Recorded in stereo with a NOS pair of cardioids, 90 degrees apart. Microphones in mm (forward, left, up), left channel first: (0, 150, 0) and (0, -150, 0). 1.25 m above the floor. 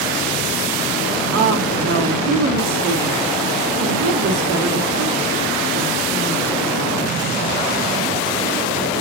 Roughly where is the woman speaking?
Right.